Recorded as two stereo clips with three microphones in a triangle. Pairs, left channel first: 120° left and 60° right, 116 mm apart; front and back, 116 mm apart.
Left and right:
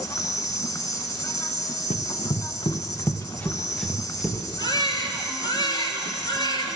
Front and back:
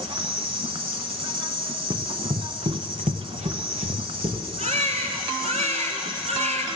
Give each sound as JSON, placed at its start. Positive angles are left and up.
{"t": 0.0, "sound": "an insect", "azimuth_deg": 170, "distance_m": 0.8}
{"t": 1.9, "sound": "running footsteps", "azimuth_deg": 120, "distance_m": 1.2}
{"t": 4.6, "sound": "a baby crying", "azimuth_deg": 170, "distance_m": 1.6}